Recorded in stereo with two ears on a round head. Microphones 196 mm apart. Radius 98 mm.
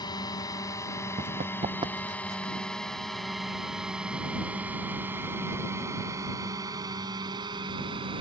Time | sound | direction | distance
0.0 | a drone | 20° left (ahead or behind) | ?
1.2 | running footsteps | 35° right (ahead or behind) | ?